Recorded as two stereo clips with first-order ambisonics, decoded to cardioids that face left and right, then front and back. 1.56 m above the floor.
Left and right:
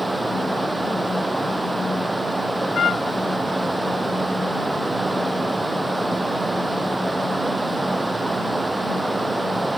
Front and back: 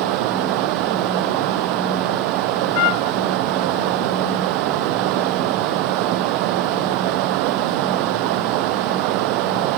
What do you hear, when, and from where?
0.0 s running water: 175° right
2.8 s a trumpet: 25° left